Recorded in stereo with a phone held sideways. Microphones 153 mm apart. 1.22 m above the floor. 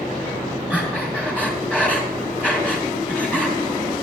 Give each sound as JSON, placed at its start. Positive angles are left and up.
{"t": 0.7, "sound": "breathing", "side_deg": 10, "distance_m": 2.5}